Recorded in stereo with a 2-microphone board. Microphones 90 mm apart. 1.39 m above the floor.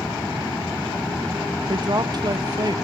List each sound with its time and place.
1.7 s a woman speaking: 45° right (ahead or behind), 1.0 m